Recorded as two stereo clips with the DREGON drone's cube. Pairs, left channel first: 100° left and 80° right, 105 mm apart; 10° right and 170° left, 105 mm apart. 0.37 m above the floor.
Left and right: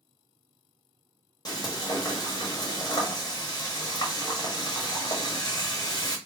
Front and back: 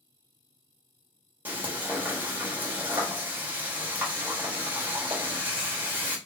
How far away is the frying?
About 1.5 m.